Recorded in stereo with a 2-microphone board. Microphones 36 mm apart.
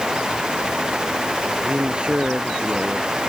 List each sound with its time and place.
1.6 s a man speaking: 30° right (ahead or behind)